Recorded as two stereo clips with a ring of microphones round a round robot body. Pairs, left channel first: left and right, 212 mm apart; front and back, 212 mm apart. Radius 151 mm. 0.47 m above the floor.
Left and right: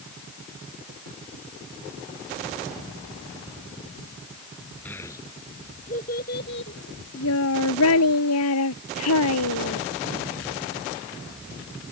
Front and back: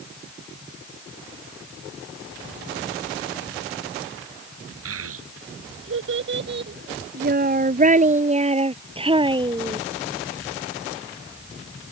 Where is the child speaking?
175° left; by 9.8 s 110° left.